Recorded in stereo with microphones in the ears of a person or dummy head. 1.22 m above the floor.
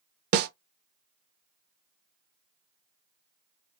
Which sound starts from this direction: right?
A snare drum, at 0.3 s.